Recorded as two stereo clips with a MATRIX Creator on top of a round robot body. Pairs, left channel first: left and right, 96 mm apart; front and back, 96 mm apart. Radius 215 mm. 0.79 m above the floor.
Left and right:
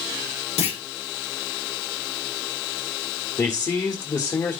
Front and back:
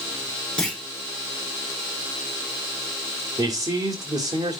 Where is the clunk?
80° left, 0.9 m.